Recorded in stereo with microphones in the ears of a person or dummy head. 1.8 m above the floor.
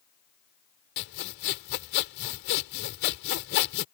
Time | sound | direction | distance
1.0 | sawing | 55° left (ahead or behind) | ?